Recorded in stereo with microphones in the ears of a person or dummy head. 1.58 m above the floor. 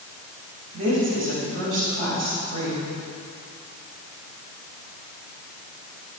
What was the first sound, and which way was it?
A woman speaking, 40° right (ahead or behind).